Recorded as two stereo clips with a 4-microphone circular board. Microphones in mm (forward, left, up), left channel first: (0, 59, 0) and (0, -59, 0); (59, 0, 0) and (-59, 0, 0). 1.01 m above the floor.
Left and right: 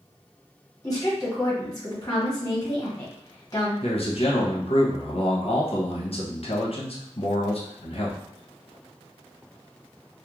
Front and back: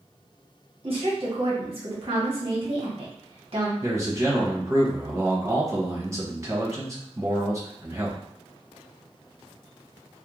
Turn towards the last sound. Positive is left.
turn(degrees=120)